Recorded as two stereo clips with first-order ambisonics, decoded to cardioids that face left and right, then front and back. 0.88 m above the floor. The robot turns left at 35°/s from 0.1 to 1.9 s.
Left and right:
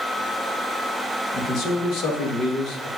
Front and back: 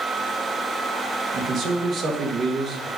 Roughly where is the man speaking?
Behind left.